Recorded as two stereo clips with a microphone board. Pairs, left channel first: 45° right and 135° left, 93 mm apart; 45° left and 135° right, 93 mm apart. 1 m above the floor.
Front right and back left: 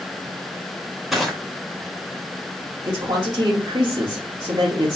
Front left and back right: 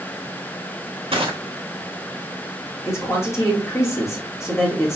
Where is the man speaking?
100° left, 1.9 m.